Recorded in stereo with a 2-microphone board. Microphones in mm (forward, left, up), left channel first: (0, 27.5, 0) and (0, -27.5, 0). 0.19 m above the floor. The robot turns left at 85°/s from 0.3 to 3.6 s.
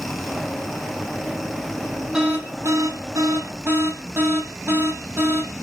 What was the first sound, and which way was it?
An alarm, 15° right.